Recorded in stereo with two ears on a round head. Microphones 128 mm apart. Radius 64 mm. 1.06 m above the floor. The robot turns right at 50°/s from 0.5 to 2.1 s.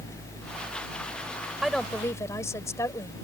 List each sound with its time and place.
1.6 s a woman speaking: 5° right (ahead or behind); by 3.1 s 20° left (ahead or behind)